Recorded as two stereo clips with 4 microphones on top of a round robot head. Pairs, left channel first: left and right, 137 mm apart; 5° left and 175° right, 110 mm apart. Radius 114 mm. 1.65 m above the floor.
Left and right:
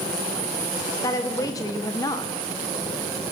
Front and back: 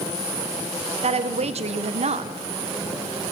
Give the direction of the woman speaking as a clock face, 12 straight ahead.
7 o'clock.